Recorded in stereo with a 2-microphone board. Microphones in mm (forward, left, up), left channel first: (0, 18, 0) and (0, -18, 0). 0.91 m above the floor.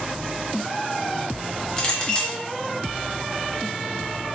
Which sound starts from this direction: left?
A clink, at 1.8 s.